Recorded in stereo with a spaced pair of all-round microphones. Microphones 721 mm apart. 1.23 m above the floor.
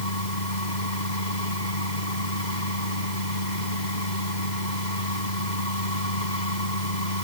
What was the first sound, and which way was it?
A machine running, 80° left.